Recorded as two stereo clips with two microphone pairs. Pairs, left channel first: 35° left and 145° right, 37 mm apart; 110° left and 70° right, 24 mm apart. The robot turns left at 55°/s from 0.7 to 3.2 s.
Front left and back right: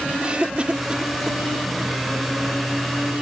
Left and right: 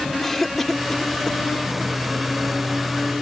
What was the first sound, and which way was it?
A cough, 175° right.